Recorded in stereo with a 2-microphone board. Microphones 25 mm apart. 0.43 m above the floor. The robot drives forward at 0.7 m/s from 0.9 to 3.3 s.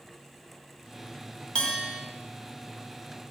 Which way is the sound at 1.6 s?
40° left (ahead or behind).